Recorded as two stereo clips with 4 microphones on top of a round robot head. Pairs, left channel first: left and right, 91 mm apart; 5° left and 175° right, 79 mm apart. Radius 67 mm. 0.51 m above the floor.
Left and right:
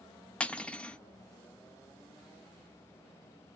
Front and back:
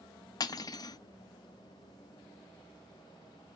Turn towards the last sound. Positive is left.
turn(degrees=15)